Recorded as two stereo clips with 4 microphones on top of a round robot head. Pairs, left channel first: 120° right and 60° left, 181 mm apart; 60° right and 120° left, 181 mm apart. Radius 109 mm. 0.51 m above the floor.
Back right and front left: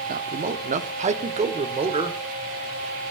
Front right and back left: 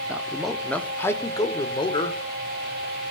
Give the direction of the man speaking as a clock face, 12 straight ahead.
11 o'clock.